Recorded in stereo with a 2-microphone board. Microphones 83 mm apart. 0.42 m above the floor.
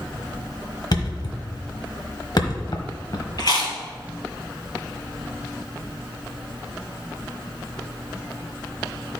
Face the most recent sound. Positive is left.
turn(degrees=55)  # may be behind; listen again after turning